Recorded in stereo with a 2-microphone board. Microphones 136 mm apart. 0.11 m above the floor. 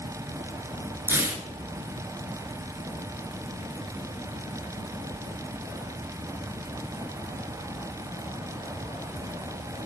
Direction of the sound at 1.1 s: 20° right (ahead or behind).